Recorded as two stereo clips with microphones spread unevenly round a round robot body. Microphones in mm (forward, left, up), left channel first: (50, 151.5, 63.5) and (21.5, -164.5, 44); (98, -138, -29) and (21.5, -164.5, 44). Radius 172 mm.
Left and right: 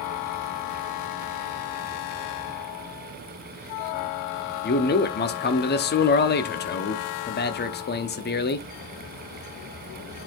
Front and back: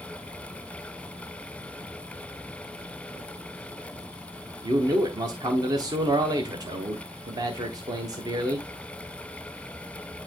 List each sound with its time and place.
4.6 s a man speaking: 100° left, 0.8 m